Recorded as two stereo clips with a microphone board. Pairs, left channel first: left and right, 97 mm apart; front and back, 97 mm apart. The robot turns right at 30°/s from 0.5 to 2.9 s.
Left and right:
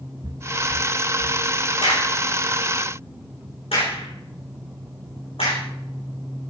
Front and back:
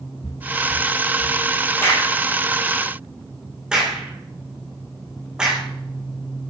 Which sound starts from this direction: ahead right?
Footsteps, at 0.2 s.